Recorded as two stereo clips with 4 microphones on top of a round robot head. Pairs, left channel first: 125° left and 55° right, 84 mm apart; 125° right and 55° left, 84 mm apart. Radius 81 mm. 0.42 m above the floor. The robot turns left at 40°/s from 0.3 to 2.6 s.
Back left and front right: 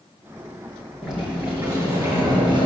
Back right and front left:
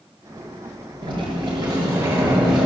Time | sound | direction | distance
1.0 | a sliding door | 35° left | 5.5 m